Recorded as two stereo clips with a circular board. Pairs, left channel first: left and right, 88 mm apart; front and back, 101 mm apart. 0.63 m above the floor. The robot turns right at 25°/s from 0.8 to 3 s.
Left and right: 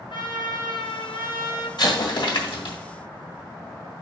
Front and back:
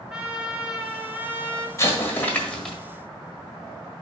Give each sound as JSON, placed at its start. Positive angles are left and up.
{"t": 0.1, "sound": "a trumpet", "azimuth_deg": 95, "distance_m": 1.5}
{"t": 1.8, "sound": "an explosion", "azimuth_deg": 60, "distance_m": 1.5}